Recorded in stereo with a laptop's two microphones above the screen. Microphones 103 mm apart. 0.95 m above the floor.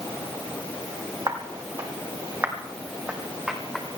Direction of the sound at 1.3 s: 40° right (ahead or behind).